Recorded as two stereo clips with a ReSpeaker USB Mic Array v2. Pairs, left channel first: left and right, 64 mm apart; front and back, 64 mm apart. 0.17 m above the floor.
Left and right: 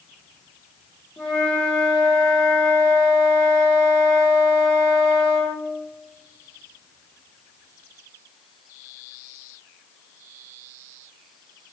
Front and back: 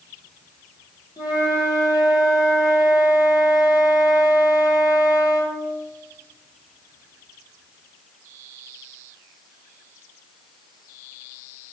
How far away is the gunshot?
No gunshot in this recording.